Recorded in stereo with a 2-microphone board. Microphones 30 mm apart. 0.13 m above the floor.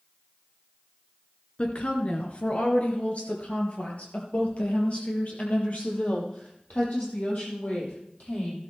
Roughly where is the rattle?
I don't hear a rattle.